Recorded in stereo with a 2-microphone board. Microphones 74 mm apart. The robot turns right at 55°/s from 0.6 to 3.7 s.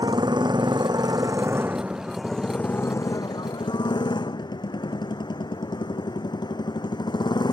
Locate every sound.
0.0 s a motorcycle: 90° right; by 7.5 s 80° left